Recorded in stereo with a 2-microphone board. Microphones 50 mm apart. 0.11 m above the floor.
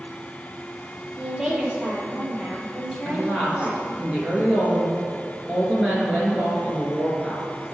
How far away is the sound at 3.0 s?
About 1.9 m.